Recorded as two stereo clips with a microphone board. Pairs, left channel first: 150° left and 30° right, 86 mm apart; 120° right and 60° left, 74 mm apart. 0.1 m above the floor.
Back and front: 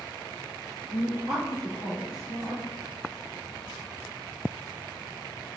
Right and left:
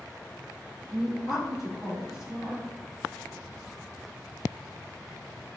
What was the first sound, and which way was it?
A woman speaking, 145° left.